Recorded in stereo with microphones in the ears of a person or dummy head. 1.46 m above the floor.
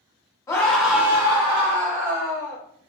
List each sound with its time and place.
0.5 s a scream: 15° left (ahead or behind), 0.7 m; by 2.6 s 50° right (ahead or behind), 1.2 m